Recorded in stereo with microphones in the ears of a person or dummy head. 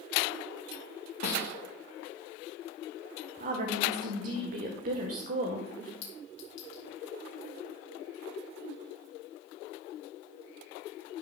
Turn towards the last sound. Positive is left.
turn(degrees=55)  # may be behind; listen again after turning